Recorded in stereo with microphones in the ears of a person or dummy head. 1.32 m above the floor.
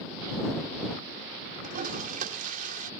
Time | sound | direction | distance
1.6 | a toilet flushing | 50° right (ahead or behind) | ?